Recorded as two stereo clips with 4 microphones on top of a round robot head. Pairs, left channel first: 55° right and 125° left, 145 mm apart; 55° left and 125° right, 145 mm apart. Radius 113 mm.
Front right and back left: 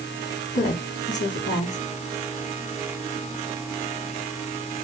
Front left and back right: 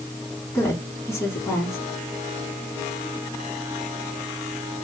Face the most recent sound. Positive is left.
turn(degrees=-20)